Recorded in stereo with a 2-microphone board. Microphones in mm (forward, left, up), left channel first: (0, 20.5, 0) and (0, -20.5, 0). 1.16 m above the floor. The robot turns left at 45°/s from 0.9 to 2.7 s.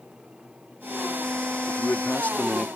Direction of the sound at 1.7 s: 70° left.